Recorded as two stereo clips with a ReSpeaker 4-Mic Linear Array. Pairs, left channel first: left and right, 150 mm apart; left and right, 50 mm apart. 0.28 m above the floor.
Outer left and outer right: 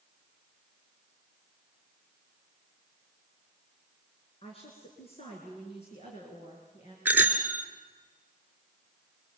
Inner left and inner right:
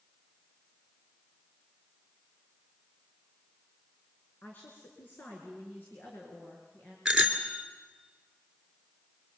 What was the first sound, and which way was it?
A woman speaking, 40° left (ahead or behind).